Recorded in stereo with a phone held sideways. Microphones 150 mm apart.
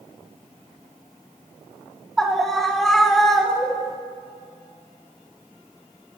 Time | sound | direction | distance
2.2 | a scream | 5° left (ahead or behind) | 3 m